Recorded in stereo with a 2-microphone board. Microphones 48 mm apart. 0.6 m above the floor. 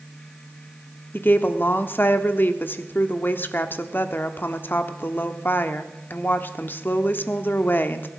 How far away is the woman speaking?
About 1.1 m.